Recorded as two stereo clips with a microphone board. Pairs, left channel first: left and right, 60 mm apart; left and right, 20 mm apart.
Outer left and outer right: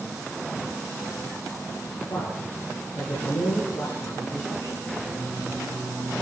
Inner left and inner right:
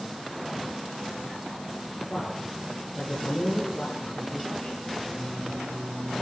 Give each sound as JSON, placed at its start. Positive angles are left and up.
{"t": 2.1, "sound": "a man speaking", "side_deg": 60, "distance_m": 7.5}
{"t": 5.0, "sound": "singing", "side_deg": -45, "distance_m": 8.5}